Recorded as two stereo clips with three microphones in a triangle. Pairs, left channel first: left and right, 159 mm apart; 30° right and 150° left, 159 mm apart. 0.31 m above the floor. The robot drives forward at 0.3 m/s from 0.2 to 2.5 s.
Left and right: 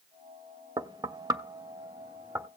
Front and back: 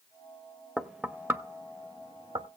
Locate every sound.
0.8 s knocking: 120° right, 0.6 m; by 2.5 s 160° right, 0.9 m